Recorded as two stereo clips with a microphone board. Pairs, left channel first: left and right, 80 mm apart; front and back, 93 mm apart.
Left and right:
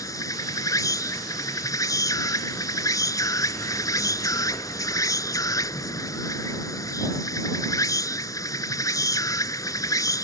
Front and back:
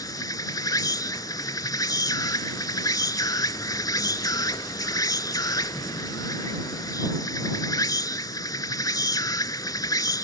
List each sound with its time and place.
0.0 s an insect: 45° left